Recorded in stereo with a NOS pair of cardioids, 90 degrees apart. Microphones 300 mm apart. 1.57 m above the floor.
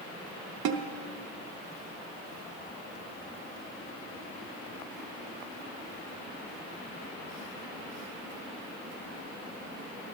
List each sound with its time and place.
0.7 s a snare drum: 60° right, 0.9 m